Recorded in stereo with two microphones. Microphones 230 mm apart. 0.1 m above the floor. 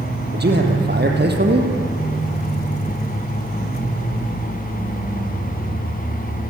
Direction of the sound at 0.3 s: 45° right (ahead or behind).